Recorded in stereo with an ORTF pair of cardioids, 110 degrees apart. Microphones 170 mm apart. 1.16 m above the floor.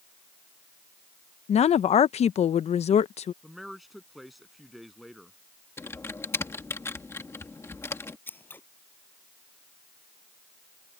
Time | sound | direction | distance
1.5 | a woman speaking | 40° left | ?
3.4 | a man speaking | straight ahead | ?
5.8 | typing on a keyboard | 15° left | ?
8.3 | scissors | 10° left | ?